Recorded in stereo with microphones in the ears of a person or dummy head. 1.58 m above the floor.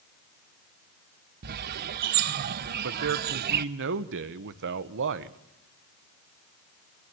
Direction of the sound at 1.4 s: 55° right (ahead or behind).